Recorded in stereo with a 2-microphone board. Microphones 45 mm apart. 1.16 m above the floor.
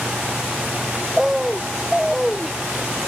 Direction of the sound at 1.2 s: 5° right (ahead or behind).